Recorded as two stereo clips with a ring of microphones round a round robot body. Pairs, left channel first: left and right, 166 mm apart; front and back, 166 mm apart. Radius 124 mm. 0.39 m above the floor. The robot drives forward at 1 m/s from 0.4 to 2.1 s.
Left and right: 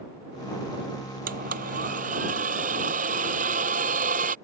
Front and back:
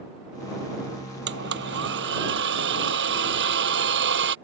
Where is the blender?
145° right; by 4.3 s 150° right.